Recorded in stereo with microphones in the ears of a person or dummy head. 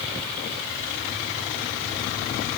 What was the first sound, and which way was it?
Only background noise.